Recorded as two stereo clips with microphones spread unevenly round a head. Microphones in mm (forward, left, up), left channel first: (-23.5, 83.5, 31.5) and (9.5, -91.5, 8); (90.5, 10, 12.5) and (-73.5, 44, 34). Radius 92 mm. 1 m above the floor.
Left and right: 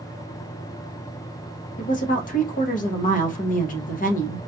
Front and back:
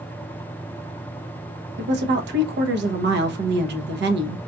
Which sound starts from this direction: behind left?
A woman speaking, at 1.8 s.